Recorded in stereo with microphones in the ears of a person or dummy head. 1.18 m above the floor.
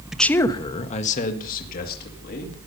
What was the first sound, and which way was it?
A man speaking, 5° right (ahead or behind).